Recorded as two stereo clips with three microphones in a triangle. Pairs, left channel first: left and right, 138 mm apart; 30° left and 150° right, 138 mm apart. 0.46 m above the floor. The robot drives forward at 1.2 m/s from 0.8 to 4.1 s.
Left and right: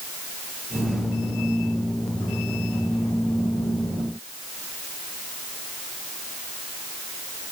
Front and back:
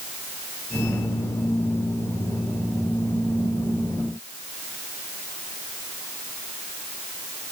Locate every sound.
Only background noise.